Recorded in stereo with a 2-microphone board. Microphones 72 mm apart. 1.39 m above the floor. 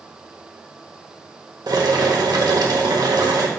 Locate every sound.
1.7 s boiling: 65° right (ahead or behind), 1.2 m